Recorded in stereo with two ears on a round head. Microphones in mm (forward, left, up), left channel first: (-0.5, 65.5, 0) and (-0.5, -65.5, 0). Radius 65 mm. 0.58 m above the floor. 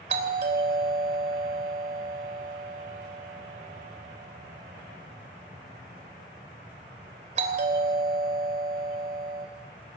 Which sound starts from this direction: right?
A doorbell, at 0.1 s.